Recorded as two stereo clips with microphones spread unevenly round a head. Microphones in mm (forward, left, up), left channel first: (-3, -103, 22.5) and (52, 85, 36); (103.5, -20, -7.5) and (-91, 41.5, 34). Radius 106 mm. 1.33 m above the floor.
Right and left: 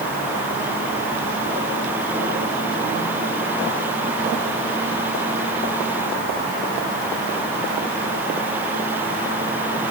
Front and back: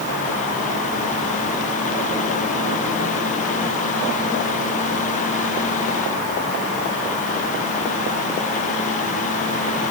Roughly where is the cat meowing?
No cat meowing in this recording.